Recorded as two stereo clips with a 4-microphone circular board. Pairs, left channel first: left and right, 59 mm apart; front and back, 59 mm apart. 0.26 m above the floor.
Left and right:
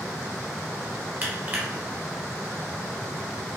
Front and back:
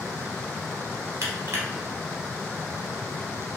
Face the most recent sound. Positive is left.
turn(degrees=-145)